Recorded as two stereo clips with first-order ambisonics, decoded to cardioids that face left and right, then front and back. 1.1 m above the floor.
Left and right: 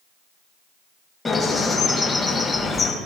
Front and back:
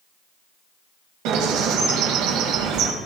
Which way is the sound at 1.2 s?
165° left.